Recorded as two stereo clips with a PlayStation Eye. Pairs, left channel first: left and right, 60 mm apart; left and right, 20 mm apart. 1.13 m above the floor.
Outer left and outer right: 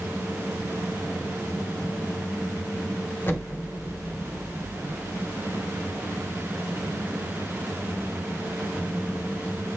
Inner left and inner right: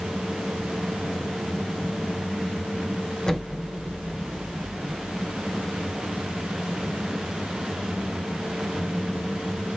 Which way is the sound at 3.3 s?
35° left (ahead or behind).